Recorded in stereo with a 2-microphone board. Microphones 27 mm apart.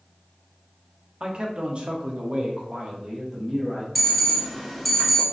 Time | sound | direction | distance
1.2 | a man speaking | 35° right (ahead or behind) | 0.7 m
4.0 | an alarm | 5° left (ahead or behind) | 0.7 m